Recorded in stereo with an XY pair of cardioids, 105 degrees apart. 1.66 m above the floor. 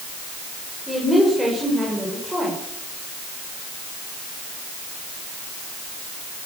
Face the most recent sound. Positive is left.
turn(degrees=0)